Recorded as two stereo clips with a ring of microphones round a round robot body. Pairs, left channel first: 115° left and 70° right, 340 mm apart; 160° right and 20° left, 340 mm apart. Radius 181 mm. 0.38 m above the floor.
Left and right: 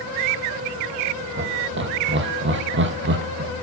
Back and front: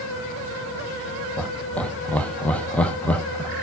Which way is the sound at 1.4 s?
75° right.